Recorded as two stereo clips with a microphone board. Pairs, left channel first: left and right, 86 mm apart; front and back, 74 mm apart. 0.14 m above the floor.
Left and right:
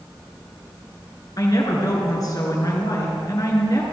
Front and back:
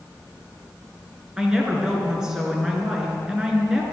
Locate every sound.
1.4 s a woman speaking: 100° left, 2 m